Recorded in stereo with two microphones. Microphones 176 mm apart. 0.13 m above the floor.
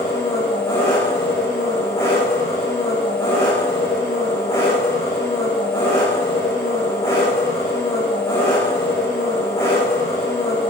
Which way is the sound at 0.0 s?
15° left (ahead or behind).